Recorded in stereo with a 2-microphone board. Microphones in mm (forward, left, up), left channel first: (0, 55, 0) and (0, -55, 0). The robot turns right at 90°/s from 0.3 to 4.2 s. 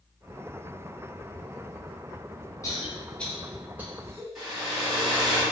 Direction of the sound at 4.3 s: 5° right (ahead or behind).